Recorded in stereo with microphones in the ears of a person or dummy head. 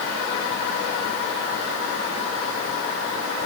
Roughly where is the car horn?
No car horn in this recording.